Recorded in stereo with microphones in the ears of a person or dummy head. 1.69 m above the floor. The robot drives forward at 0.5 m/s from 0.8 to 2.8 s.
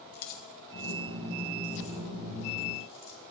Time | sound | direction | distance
0.1 | keys jangling | 55° left (ahead or behind) | 1.0 m